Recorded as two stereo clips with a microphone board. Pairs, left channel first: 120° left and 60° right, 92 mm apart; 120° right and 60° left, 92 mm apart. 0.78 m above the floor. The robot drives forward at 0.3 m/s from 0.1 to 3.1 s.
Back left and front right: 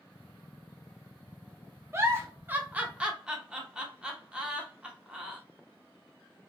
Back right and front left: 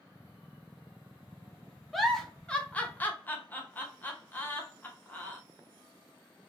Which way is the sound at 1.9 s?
35° right.